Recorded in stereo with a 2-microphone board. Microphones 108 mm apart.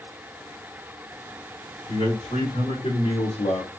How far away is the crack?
No crack in this recording.